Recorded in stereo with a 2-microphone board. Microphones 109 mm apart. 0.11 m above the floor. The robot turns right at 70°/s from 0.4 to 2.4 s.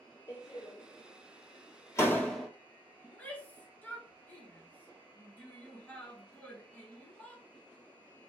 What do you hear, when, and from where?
0.3 s a door slam: 35° left (ahead or behind), 1.6 m; by 2.5 s centre (ahead or behind), 1.6 m
3.0 s a shout: 15° left (ahead or behind), 1.4 m